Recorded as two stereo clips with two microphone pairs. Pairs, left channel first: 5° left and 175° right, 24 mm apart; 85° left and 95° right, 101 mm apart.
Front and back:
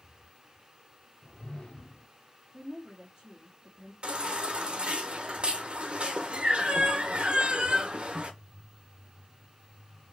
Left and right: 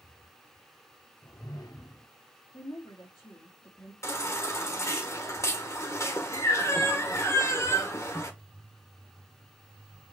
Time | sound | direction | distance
1.2 | a whoosh | 40° left | 0.6 m
2.5 | a woman speaking | 125° left | 2.0 m
4.0 | a baby crying | 145° left | 1.3 m